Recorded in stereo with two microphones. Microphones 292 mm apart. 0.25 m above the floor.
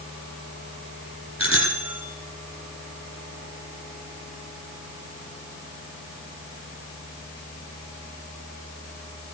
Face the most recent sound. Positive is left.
turn(degrees=20)  # may be behind; listen again after turning